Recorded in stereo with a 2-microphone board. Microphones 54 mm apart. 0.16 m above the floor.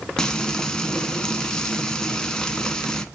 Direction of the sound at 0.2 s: 15° left (ahead or behind).